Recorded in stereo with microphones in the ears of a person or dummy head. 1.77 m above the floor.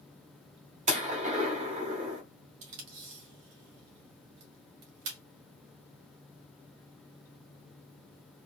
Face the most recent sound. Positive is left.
turn(degrees=-70)  # may be behind; listen again after turning